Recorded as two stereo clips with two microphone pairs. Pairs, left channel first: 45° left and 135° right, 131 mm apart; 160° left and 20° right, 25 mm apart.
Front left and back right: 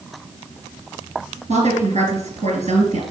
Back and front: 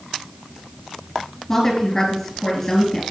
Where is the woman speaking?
125° right, 3 m.